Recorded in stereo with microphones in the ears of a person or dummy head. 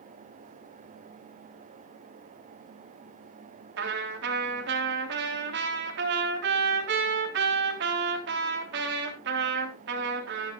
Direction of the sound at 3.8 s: 65° right (ahead or behind).